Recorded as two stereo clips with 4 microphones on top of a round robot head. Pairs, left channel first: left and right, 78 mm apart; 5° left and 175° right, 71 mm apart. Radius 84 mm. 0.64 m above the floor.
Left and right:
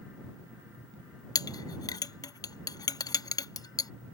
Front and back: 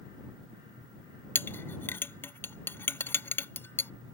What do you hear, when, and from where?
1.4 s a clink: 60° left